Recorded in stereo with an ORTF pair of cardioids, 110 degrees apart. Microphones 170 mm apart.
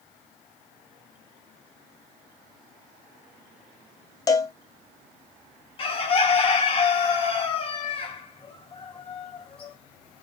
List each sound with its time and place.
4.3 s a cowbell: 25° left, 0.5 m
5.8 s a bird: 35° left, 0.7 m